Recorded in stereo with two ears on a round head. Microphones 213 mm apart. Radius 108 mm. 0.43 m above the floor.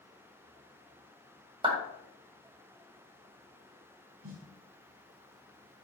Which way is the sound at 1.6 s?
25° right (ahead or behind).